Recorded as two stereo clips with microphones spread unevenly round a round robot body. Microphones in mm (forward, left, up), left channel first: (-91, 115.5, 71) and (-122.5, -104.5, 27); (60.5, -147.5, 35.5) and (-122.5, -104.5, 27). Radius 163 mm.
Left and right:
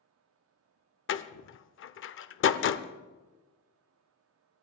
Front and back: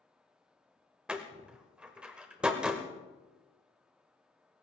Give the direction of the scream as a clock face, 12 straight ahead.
I don't hear a scream.